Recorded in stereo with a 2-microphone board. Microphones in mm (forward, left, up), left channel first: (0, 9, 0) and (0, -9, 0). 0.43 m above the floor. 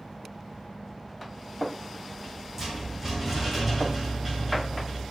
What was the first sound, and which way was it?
A rattle, 25° right (ahead or behind).